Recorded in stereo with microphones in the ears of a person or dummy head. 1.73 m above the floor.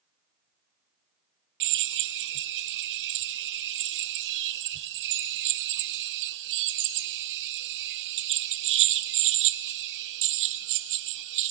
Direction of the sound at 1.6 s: 60° right (ahead or behind).